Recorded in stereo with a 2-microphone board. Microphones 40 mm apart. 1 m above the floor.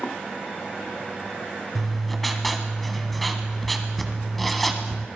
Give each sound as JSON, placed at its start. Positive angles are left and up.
{"t": 1.8, "sound": "writing", "side_deg": 0, "distance_m": 1.4}